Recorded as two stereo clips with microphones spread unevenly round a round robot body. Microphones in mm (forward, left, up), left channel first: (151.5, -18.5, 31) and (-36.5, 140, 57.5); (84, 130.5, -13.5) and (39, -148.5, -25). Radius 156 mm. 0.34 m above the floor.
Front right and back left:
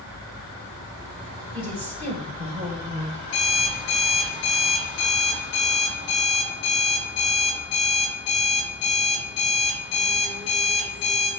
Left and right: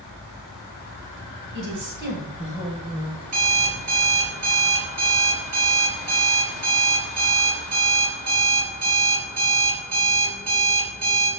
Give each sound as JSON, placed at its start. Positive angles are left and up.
{"t": 1.5, "sound": "a woman speaking", "azimuth_deg": -145, "distance_m": 2.5}
{"t": 3.2, "sound": "an alarm clock", "azimuth_deg": -70, "distance_m": 3.0}